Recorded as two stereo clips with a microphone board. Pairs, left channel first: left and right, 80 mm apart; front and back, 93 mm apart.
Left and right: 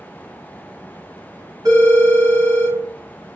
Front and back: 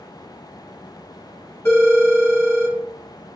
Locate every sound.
1.6 s a phone ringing: 65° right, 1.4 m